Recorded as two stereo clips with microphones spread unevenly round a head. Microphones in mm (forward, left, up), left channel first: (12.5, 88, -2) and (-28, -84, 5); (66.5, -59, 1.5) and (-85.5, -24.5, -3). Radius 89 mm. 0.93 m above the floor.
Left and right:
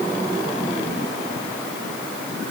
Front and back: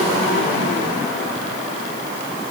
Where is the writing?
I don't hear writing.